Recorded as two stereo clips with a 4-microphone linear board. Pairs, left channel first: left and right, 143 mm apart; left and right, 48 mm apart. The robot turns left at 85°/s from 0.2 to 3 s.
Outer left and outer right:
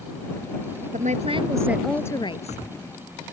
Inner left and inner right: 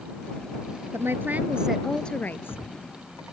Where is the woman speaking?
105° right; by 2.6 s 115° left.